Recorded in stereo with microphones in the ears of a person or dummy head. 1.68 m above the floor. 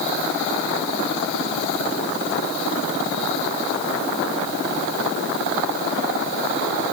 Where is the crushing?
I don't hear crushing.